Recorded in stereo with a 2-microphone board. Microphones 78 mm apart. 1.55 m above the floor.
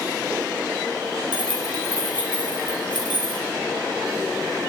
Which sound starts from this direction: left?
Keys jangling, at 1.3 s.